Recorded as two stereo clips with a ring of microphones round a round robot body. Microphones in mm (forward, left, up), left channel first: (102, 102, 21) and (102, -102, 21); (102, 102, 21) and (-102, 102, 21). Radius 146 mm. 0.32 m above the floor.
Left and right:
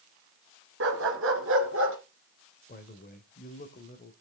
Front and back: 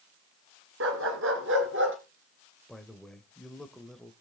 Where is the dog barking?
135° right, 1.4 m; by 2.0 s 130° right, 2.0 m.